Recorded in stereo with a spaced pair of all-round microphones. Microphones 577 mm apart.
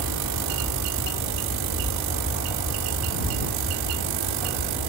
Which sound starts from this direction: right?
An aircraft, at 0.0 s.